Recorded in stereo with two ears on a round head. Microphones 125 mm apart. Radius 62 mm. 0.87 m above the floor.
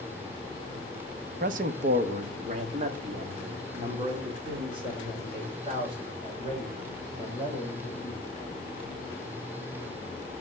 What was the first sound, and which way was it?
A man speaking, 60° right (ahead or behind).